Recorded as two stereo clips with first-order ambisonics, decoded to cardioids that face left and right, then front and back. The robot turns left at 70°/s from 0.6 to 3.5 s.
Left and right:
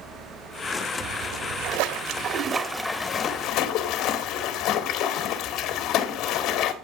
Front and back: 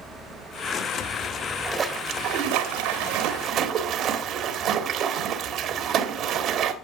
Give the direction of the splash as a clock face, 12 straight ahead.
2 o'clock.